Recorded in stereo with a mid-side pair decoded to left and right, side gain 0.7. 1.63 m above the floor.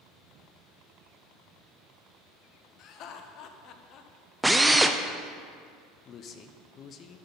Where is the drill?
5° right, 0.5 m.